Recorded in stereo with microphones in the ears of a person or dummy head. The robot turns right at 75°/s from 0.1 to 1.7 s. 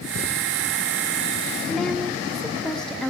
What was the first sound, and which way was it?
A woman speaking, 5° right (ahead or behind).